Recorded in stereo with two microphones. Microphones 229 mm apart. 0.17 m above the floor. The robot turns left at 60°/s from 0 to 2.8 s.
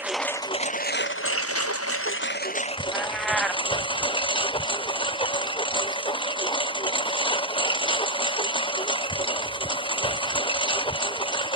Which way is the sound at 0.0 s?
170° right.